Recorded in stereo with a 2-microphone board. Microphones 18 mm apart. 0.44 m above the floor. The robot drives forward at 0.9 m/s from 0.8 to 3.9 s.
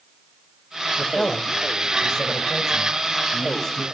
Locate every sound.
1.0 s a man speaking: 50° left (ahead or behind), 1.4 m; by 3.8 s 20° left (ahead or behind), 3 m